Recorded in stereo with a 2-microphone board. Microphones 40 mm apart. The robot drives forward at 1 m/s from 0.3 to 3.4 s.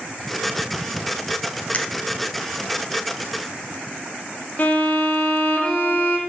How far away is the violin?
About 1.2 m.